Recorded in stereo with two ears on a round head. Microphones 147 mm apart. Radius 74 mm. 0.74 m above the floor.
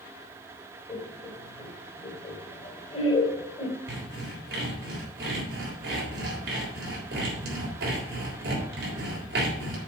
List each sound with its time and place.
0.9 s laughter: 35° left (ahead or behind), 2.5 m
3.9 s sawing: 70° right (ahead or behind), 3.5 m